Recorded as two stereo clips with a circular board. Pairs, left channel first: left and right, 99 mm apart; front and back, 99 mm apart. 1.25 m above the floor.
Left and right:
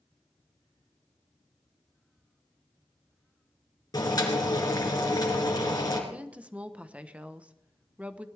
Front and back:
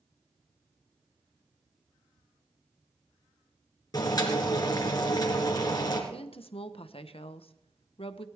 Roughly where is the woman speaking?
Ahead.